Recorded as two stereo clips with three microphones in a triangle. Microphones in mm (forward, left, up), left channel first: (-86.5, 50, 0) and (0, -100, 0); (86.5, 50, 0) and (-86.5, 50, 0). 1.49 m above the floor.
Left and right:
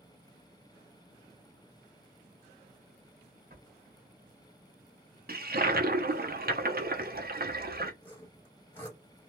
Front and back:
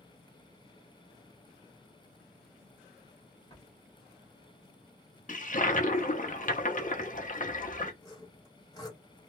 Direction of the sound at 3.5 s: 50° right.